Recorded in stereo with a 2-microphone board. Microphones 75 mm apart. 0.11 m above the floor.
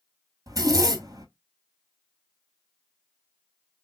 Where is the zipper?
50° right (ahead or behind), 0.8 m.